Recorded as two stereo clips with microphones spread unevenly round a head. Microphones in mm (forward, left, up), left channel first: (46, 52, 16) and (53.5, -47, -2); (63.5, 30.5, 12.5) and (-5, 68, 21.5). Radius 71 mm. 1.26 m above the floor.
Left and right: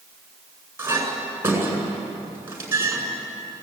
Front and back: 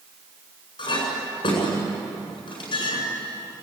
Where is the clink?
20° right, 8.5 m.